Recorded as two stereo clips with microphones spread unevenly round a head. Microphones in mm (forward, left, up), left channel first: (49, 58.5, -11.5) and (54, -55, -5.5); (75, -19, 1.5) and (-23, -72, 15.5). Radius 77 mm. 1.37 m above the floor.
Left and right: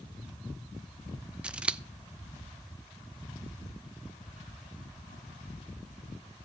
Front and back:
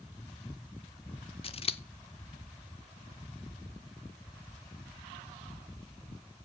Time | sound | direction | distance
1.4 | scissors | 10° right | 0.9 m